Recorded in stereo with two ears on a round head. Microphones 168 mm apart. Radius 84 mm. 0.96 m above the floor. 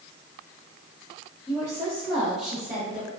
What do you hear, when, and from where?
1.5 s a woman speaking: centre (ahead or behind), 0.5 m; by 3.1 s 35° right (ahead or behind), 1.3 m